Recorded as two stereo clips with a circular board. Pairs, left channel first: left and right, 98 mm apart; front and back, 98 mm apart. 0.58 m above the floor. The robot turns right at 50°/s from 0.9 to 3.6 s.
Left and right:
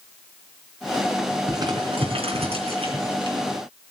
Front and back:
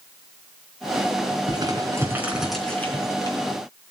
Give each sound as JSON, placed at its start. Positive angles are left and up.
{"t": 1.5, "sound": "crumpling", "azimuth_deg": -140, "distance_m": 3.5}